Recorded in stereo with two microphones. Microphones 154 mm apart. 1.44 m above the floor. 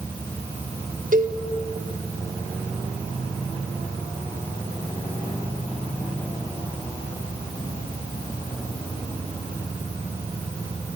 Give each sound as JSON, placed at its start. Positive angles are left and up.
{"t": 1.1, "sound": "a cowbell", "side_deg": -60, "distance_m": 1.9}